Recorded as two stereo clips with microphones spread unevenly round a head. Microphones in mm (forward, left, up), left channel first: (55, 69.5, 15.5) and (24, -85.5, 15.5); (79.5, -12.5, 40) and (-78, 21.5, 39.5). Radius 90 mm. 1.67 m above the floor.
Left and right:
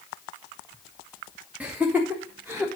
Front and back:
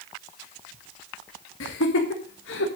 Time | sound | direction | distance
1.6 | laughter | 20° right | 1.4 m